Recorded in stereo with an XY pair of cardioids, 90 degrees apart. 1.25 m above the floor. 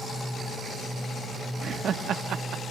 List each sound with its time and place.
1.6 s laughter: 60° right, 1.8 m; by 2.6 s 80° right, 1.9 m